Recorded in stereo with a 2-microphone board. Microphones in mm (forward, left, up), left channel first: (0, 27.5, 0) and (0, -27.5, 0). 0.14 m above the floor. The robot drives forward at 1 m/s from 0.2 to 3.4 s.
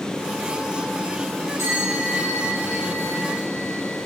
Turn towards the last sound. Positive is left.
turn(degrees=-70)  # may be behind; listen again after turning